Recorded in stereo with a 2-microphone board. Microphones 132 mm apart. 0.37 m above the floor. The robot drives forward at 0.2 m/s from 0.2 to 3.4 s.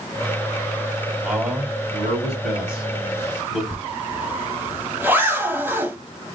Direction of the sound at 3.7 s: 15° right (ahead or behind).